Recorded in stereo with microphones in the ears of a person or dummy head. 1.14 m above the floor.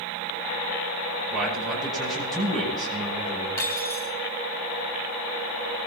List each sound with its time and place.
1.3 s a man speaking: centre (ahead or behind), 9.5 m
3.6 s cutlery clinking: 15° left (ahead or behind), 4 m